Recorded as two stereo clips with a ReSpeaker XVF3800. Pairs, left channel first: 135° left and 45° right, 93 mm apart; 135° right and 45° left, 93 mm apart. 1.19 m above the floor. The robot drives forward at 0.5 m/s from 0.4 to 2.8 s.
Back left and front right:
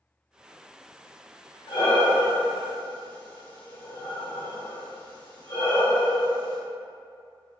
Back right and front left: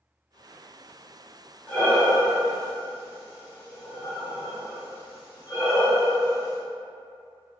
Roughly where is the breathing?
Behind left.